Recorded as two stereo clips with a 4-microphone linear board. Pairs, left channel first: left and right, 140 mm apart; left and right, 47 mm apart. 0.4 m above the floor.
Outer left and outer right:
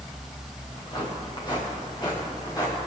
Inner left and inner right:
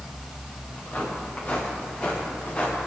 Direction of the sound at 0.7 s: 35° left (ahead or behind).